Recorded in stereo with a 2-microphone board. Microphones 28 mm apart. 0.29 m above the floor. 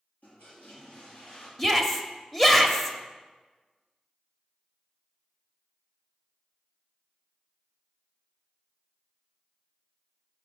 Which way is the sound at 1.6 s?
10° left (ahead or behind).